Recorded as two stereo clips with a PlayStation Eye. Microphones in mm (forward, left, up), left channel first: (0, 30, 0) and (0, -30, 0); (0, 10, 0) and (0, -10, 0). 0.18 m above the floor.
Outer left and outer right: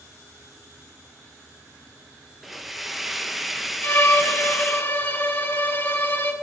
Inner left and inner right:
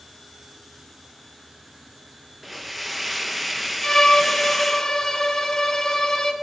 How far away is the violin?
About 1.2 m.